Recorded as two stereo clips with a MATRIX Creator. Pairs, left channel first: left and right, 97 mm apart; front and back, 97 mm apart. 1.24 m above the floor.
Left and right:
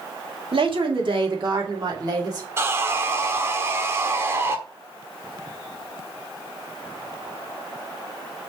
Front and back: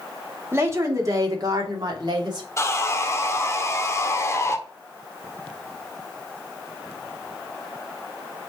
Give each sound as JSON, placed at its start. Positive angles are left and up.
{"t": 0.5, "sound": "a woman speaking", "azimuth_deg": -115, "distance_m": 2.0}
{"t": 2.6, "sound": "sawing", "azimuth_deg": -40, "distance_m": 1.0}